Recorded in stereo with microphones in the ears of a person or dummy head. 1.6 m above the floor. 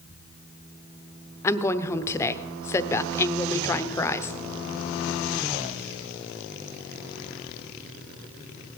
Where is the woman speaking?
15° left (ahead or behind), 0.8 m.